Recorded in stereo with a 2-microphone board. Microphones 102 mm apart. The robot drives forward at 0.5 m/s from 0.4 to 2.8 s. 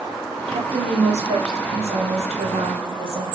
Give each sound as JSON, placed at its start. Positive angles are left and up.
{"t": 0.5, "sound": "a woman speaking", "side_deg": -75, "distance_m": 2.0}